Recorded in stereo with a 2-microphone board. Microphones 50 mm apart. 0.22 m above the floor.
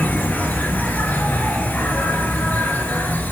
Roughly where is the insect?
Left.